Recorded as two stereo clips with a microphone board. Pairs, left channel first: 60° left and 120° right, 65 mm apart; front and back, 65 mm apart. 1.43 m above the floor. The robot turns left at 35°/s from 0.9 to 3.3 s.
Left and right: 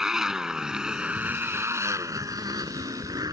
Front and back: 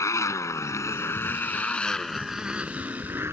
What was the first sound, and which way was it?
A motorcycle, 40° right.